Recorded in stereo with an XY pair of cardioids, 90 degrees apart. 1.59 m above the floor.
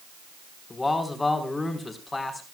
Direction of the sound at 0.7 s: 25° left.